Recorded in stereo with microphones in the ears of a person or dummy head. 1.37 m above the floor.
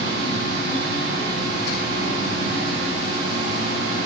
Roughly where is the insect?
Left.